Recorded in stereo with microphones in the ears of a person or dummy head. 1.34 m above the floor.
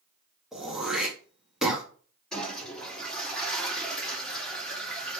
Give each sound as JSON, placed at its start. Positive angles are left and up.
{"t": 0.5, "sound": "throat clearing", "side_deg": -5, "distance_m": 1.6}
{"t": 2.3, "sound": "a toilet flushing", "side_deg": 0, "distance_m": 3.0}